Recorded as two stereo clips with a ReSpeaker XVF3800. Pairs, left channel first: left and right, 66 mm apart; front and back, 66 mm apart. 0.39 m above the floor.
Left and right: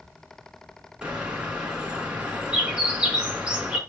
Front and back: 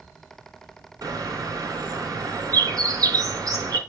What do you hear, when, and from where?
1.0 s a bird: 165° right, 4 m